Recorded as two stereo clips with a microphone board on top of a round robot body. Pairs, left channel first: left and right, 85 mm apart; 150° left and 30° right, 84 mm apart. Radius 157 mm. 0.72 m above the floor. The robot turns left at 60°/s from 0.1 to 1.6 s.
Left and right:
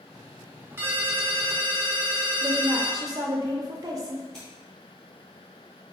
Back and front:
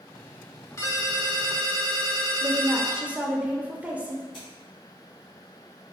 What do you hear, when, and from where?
0.8 s a ringtone: 150° right, 0.7 m; by 3.0 s 160° left, 0.7 m
2.4 s a woman speaking: 95° right, 0.6 m
4.3 s scissors: 170° left, 0.7 m